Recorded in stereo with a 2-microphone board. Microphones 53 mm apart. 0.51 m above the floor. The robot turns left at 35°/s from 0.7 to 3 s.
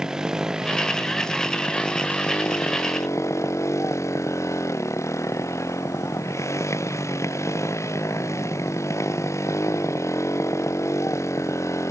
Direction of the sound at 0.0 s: 170° right.